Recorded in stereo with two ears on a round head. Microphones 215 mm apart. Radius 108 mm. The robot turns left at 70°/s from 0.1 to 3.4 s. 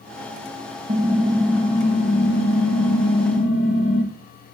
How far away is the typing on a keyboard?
About 2 m.